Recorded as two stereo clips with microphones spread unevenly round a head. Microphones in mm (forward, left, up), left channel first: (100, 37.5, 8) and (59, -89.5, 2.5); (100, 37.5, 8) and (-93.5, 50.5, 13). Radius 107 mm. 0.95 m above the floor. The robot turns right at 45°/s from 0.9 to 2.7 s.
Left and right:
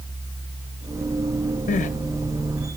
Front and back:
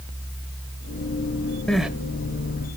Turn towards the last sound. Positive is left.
turn(degrees=130)